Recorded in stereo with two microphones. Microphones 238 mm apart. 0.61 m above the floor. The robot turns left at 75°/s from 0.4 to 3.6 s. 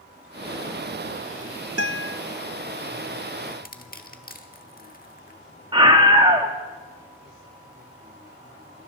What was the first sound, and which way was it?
A guitar, 90° right.